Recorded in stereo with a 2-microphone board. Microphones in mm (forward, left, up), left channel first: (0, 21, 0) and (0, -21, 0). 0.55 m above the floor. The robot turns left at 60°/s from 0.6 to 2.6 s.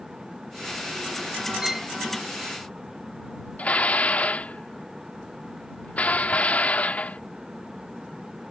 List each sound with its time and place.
1.6 s a violin: 20° right (ahead or behind); by 1.9 s centre (ahead or behind)
3.6 s dishes clattering: 35° left (ahead or behind)